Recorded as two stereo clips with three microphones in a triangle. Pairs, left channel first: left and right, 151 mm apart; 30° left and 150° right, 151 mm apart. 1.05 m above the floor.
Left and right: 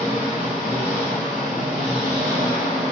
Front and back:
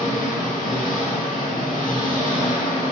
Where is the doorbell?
No doorbell in this recording.